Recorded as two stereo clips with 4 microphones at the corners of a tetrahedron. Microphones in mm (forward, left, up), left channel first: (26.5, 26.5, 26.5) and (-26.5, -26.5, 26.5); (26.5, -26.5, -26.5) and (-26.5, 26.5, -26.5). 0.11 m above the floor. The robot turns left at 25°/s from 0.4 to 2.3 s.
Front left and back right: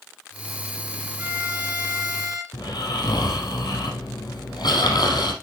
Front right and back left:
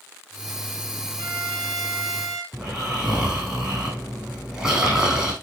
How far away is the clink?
No clink in this recording.